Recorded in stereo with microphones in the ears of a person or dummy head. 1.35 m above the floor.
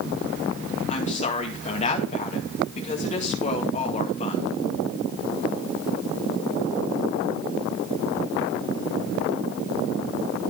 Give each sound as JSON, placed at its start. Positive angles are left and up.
{"t": 0.9, "sound": "a woman speaking", "side_deg": 45, "distance_m": 2.0}